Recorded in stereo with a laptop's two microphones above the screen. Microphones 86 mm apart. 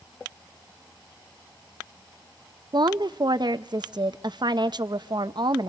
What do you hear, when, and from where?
2.7 s a woman speaking: 55° right (ahead or behind), 0.6 m